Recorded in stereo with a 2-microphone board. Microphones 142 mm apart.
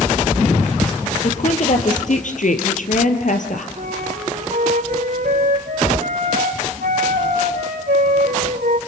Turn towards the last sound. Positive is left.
turn(degrees=-80)